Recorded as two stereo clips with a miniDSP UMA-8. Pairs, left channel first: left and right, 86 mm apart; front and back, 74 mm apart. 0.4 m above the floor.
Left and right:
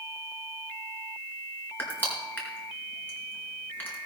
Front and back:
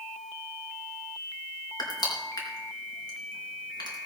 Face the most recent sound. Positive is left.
turn(degrees=25)